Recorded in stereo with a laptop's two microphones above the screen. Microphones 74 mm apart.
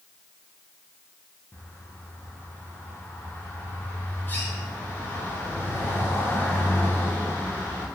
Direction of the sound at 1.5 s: 25° left (ahead or behind).